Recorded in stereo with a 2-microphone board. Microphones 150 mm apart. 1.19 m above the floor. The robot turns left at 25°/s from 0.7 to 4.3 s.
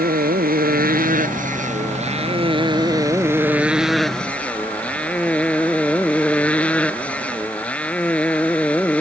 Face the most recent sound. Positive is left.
turn(degrees=170)